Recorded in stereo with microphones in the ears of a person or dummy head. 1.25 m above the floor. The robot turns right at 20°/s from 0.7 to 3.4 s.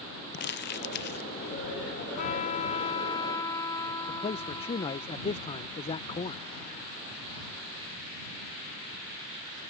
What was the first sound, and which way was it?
Crumpling, 55° left (ahead or behind).